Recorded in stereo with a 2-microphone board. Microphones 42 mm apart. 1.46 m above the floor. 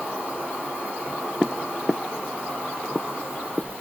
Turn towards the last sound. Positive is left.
turn(degrees=-20)  # may be behind; listen again after turning